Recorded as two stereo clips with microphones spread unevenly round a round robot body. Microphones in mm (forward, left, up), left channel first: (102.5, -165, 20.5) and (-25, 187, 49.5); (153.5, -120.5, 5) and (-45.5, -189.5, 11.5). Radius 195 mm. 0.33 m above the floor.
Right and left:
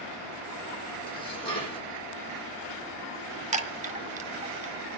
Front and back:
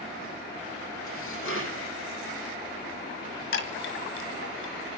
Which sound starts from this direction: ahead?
Dishes clattering, at 1.1 s.